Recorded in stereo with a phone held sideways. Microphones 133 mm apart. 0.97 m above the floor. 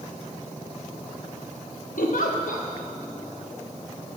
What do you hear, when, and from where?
2.0 s a giggle: 80° left, 0.8 m